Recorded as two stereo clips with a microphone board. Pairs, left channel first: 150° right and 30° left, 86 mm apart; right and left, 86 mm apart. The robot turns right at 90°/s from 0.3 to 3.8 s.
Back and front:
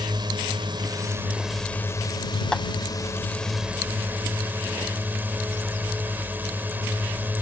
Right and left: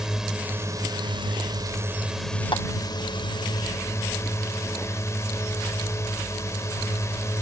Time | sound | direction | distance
0.0 | a drone | 5° left | ?
2.5 | tapping | 70° right | ?